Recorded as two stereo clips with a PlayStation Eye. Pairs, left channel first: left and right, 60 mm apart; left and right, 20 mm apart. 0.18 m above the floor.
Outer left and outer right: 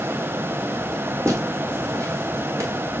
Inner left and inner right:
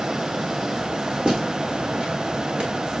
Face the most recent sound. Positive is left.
turn(degrees=-60)  # may be behind; listen again after turning